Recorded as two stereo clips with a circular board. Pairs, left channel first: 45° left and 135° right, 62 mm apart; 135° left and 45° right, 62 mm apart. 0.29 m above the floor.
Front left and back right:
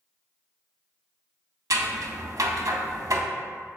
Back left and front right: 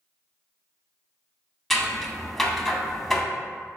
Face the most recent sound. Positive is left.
turn(degrees=-140)